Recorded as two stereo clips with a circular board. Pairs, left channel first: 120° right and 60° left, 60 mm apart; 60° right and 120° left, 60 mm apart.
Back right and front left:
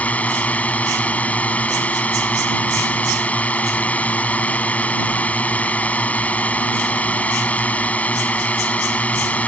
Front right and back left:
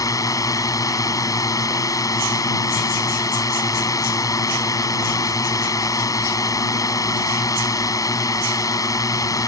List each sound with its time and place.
0.0 s a drone: 55° right